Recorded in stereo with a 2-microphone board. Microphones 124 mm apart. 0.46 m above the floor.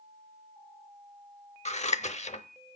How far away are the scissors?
About 0.7 m.